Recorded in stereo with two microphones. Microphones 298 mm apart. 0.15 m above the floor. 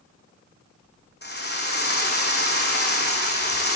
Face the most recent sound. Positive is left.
turn(degrees=35)  # may be behind; listen again after turning